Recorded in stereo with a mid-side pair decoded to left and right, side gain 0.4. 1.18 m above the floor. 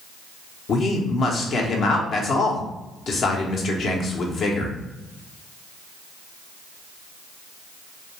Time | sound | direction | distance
0.7 | a man speaking | 65° left | 0.7 m